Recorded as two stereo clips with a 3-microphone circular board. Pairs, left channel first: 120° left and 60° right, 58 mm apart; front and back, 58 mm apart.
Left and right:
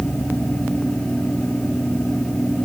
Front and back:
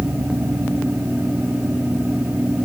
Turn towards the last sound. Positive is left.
No sound to turn to.